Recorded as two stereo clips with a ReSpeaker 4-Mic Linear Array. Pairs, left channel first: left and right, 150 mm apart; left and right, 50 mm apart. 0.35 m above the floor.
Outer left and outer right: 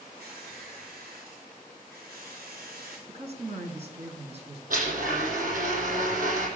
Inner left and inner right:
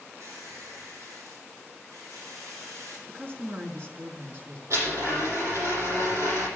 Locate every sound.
0.2 s a squeak: 80° right, 6.5 m
3.1 s a woman speaking: 45° right (ahead or behind), 4 m
4.7 s a blender: 65° right (ahead or behind), 10 m